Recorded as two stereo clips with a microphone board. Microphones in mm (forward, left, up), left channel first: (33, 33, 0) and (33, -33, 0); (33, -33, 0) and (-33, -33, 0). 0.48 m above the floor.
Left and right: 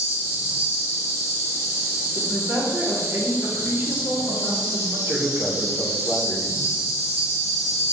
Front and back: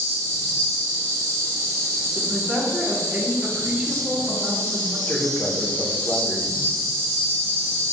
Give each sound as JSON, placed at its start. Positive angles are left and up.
{"t": 0.0, "sound": "an insect", "azimuth_deg": -30, "distance_m": 1.9}
{"t": 2.1, "sound": "a woman speaking", "azimuth_deg": -110, "distance_m": 1.0}
{"t": 5.1, "sound": "a man speaking", "azimuth_deg": -50, "distance_m": 0.9}